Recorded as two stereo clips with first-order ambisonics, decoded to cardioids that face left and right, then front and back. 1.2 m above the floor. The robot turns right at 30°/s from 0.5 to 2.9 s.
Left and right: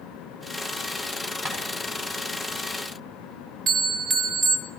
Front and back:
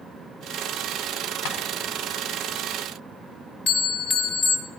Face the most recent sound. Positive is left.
turn(degrees=-35)